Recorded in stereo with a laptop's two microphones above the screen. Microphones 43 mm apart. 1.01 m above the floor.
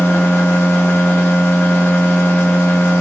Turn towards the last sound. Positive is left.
turn(degrees=60)  # may be behind; listen again after turning